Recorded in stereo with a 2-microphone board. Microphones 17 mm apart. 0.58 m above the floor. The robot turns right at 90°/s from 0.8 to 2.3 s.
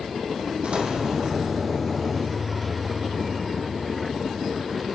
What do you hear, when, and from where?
0.6 s an explosion: 100° right, 6.5 m; by 1.6 s 25° right, 6.5 m